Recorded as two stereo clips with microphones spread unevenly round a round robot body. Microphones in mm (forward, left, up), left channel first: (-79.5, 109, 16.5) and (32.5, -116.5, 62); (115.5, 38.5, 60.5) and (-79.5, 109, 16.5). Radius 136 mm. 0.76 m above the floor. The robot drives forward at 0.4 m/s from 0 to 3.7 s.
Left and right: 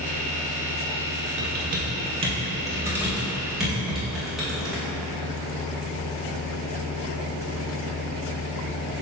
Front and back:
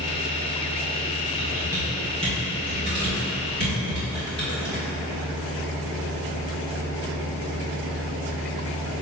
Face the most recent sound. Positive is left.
turn(degrees=-155)